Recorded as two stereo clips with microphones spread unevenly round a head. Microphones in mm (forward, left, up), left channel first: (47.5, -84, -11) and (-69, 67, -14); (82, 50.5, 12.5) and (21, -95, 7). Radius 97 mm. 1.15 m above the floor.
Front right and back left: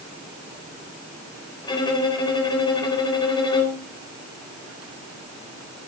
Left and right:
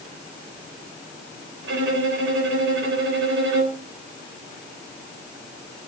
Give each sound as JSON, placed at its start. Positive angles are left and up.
{"t": 1.6, "sound": "a violin", "azimuth_deg": -120, "distance_m": 3.5}